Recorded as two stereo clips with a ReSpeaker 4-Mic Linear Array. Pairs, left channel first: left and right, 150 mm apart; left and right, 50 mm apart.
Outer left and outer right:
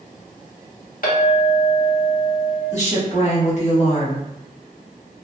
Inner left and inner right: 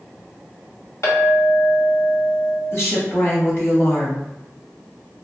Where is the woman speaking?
50° left (ahead or behind), 1.4 m.